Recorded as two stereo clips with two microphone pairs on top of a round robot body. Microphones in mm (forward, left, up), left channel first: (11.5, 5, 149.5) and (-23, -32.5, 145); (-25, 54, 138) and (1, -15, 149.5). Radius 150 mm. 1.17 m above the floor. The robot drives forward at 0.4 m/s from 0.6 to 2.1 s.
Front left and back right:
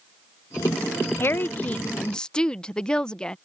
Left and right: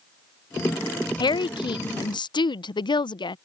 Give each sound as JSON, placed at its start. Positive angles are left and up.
{"t": 1.2, "sound": "a woman speaking", "azimuth_deg": 95}